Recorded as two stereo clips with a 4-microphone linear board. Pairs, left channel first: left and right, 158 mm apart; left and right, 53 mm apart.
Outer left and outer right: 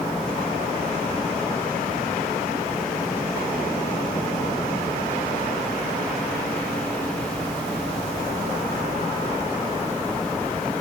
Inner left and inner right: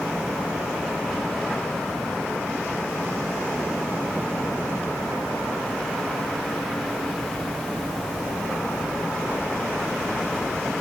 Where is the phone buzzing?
I don't hear a phone buzzing.